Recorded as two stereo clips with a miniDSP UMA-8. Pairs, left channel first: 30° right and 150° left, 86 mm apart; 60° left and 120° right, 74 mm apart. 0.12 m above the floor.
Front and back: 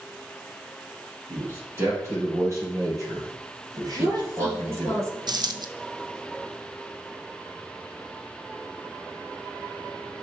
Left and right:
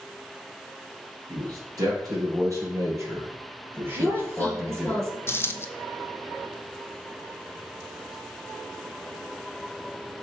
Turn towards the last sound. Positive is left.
turn(degrees=120)